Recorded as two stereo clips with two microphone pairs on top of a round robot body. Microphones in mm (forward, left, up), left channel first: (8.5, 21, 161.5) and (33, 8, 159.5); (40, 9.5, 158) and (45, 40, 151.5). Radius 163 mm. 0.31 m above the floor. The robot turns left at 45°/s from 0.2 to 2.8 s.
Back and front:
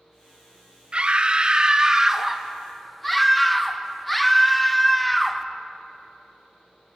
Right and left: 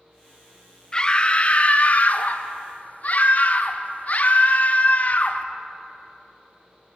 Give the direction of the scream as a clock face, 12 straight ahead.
1 o'clock.